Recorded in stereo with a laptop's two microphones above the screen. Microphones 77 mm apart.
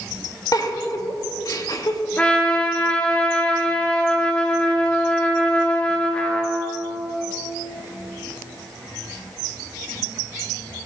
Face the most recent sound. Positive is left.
turn(degrees=15)  # may be behind; listen again after turning